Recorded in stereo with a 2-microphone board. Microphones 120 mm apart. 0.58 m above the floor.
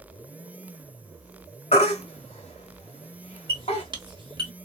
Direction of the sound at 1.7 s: 60° left (ahead or behind).